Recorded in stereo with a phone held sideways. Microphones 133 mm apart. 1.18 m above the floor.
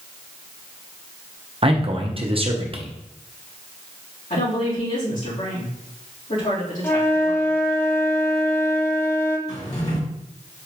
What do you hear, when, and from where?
1.6 s a man speaking: 45° right (ahead or behind), 0.8 m
4.3 s a woman speaking: 75° left (ahead or behind), 2.5 m
6.8 s a flute: 15° left (ahead or behind), 0.6 m
9.5 s a drawer: 55° left (ahead or behind), 1.8 m